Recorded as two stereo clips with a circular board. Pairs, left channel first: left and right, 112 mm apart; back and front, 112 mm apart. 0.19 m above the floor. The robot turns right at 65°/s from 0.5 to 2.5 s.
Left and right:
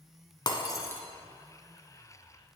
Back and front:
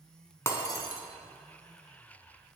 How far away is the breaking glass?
About 1.2 m.